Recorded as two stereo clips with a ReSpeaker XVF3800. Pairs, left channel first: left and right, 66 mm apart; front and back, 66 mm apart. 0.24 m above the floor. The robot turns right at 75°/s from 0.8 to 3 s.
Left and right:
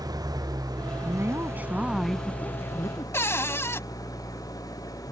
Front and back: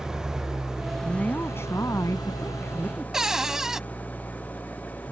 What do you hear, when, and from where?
0.0 s an engine running: 100° right; by 5.1 s 65° left
1.0 s a woman speaking: 75° right; by 3.0 s 70° left
3.1 s a cupboard door: 105° left